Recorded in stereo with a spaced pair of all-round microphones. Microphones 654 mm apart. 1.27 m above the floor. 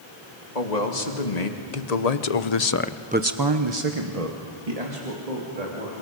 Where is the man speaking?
80° left, 2.5 m; by 6.0 s 70° right (ahead or behind), 3.5 m.